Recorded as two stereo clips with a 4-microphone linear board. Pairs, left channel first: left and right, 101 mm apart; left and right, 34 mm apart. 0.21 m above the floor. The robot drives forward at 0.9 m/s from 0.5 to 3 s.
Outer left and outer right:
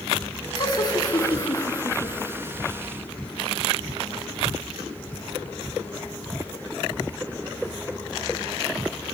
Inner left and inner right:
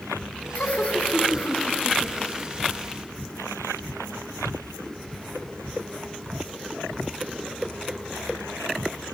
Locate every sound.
0.6 s laughter: 45° left (ahead or behind), 2 m; by 2.5 s 30° left (ahead or behind), 3 m